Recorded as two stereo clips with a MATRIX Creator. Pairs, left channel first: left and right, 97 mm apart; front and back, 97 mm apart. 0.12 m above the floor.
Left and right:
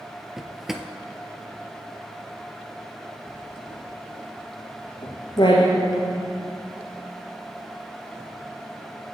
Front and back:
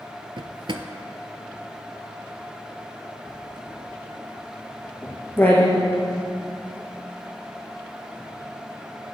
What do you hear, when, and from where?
0.4 s a drawer: 175° right, 0.7 m
3.3 s writing: 70° left, 2 m